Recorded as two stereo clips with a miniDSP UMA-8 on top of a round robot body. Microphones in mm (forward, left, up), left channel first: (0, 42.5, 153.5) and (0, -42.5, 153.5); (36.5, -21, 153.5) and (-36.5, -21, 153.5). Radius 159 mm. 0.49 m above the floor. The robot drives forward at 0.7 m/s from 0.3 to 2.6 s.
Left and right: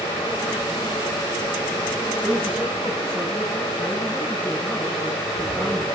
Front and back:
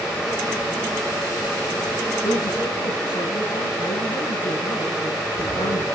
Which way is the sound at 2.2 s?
5° left.